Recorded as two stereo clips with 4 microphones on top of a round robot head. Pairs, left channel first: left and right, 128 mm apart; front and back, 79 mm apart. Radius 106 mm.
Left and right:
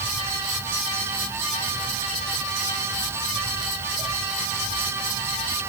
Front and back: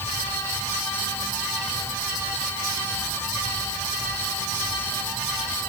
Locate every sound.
Only background noise.